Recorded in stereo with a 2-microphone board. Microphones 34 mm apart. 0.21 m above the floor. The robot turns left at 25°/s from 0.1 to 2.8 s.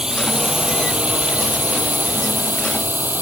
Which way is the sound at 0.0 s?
20° right (ahead or behind).